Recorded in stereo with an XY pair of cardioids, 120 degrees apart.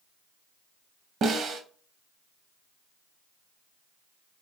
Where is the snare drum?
55° right, 0.7 m.